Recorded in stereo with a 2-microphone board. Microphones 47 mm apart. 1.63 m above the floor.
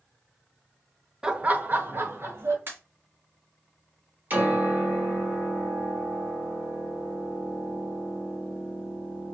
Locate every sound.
1.2 s laughter: 15° right (ahead or behind), 0.7 m; by 2.6 s 60° right (ahead or behind), 1.9 m
2.7 s a pop: 50° right (ahead or behind), 2.5 m
4.3 s a piano: 40° right (ahead or behind), 3.5 m